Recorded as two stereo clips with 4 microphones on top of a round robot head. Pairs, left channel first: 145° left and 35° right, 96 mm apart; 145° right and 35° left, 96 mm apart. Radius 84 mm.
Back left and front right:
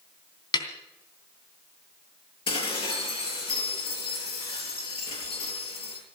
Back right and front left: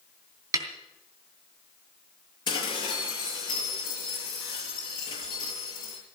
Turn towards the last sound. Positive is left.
turn(degrees=175)